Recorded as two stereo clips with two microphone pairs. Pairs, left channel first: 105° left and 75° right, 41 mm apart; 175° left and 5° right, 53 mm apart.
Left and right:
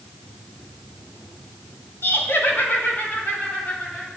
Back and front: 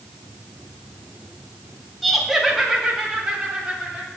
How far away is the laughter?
About 1.8 m.